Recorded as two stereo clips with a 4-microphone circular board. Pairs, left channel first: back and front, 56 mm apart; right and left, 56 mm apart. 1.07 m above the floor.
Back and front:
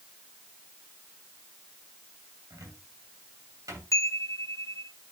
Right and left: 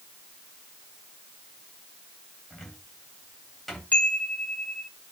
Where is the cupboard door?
Straight ahead, 3 m.